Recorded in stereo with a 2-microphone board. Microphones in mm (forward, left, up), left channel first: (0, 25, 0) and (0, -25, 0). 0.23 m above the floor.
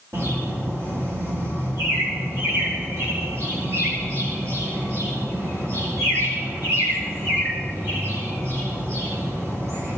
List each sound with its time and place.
0.1 s a bird: 70° right (ahead or behind), 9 m